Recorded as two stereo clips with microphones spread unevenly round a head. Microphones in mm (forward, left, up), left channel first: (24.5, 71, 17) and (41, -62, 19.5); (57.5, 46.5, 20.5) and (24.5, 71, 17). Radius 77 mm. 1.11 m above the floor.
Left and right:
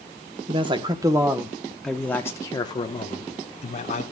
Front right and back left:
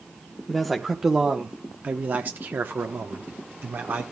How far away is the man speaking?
About 1.1 m.